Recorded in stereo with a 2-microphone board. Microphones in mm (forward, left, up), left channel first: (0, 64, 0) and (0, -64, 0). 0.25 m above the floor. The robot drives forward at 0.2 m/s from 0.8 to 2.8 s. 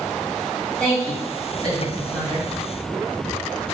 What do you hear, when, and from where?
0.8 s a woman speaking: 5° left (ahead or behind), 1.7 m